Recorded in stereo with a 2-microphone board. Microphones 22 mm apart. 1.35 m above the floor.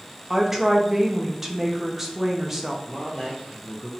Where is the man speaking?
5° right (ahead or behind), 0.7 m.